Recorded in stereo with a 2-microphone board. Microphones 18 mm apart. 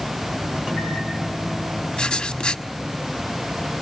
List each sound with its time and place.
0.6 s a microwave: 45° right (ahead or behind), 6.5 m
2.0 s writing: 65° left (ahead or behind), 1.1 m